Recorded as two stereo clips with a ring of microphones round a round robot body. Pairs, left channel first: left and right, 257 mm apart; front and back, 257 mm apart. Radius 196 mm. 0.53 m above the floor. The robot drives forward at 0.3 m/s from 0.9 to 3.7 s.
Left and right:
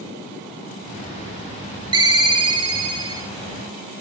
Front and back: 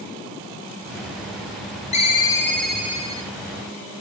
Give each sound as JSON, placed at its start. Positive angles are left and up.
{"t": 1.9, "sound": "a ringtone", "azimuth_deg": -30, "distance_m": 0.6}